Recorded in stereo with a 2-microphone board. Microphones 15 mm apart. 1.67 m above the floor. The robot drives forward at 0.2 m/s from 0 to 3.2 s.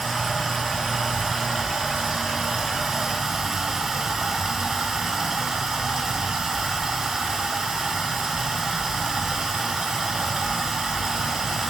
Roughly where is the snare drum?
I don't hear a snare drum.